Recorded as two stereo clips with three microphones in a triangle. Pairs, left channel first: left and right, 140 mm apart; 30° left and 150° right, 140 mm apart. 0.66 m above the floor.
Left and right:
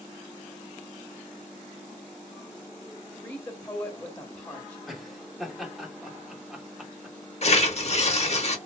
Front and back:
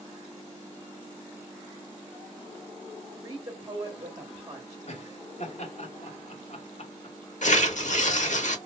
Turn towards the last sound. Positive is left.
turn(degrees=55)